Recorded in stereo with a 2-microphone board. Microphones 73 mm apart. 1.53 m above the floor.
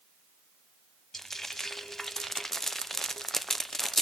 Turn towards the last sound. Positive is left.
turn(degrees=5)  # may be behind; listen again after turning